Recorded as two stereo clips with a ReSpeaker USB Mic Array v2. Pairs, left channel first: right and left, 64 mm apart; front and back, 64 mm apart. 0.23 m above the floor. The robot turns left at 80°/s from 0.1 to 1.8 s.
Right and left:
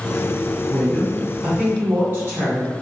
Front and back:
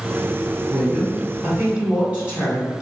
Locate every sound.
0.7 s a woman speaking: 155° right, 1.8 m; by 2.7 s 120° left, 1.8 m